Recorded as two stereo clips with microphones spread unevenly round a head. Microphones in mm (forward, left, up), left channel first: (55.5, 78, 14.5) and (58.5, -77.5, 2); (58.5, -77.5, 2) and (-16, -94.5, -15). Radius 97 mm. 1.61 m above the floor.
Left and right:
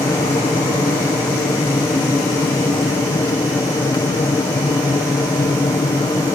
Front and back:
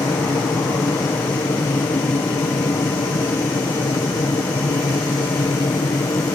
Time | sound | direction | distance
0.0 | an aircraft | 30° left | ?